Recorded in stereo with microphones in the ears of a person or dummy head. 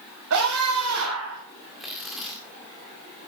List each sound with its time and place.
0.3 s a scream: 70° right (ahead or behind), 5.5 m; by 1.4 s 80° right, 7 m
1.8 s tearing paper: centre (ahead or behind), 1.8 m